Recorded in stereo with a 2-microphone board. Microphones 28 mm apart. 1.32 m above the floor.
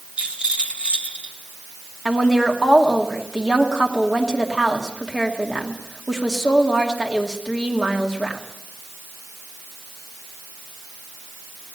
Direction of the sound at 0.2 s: 40° right (ahead or behind).